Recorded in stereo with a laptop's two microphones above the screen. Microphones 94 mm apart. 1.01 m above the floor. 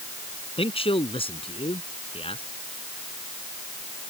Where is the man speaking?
85° left.